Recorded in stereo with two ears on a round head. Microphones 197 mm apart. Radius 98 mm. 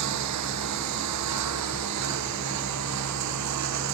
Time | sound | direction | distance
0.0 | a lawn mower | 85° right | ?